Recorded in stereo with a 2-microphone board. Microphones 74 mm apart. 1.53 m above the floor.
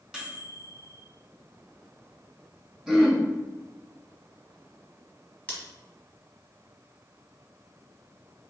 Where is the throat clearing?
Centre (ahead or behind), 0.8 m.